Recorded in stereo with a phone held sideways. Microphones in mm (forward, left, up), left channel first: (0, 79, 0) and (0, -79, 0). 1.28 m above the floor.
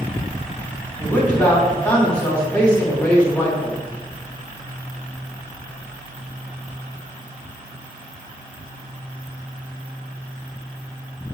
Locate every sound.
1.0 s a man speaking: 10° left (ahead or behind), 3 m